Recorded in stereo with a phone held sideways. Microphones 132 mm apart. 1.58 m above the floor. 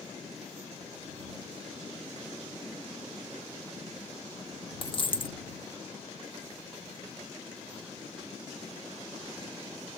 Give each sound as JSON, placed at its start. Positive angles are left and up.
{"t": 4.8, "sound": "a dropped coin", "side_deg": 40}